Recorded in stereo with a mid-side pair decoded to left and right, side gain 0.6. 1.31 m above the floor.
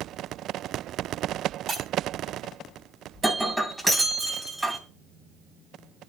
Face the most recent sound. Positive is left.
turn(degrees=-5)